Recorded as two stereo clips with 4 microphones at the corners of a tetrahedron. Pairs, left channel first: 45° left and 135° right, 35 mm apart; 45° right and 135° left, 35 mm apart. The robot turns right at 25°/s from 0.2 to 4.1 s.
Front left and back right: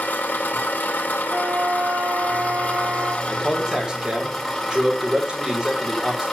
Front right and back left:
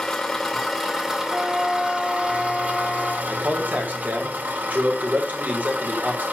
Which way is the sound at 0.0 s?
30° left.